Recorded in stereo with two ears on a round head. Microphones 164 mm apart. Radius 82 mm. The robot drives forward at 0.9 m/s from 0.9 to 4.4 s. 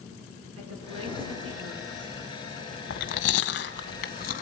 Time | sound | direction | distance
0.6 | a woman speaking | 85° right | 9.5 m
2.9 | chewing | 70° left (ahead or behind) | 1.6 m